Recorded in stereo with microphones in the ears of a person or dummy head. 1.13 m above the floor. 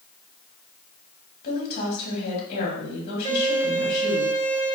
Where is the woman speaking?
60° left (ahead or behind), 2 m.